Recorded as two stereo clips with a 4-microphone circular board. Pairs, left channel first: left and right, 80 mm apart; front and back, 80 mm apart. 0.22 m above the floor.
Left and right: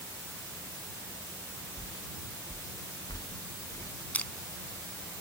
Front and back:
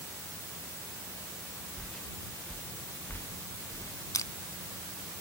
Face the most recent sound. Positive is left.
turn(degrees=25)